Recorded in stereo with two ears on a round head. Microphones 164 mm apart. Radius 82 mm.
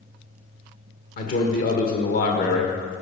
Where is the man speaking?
50° left (ahead or behind), 1.6 m.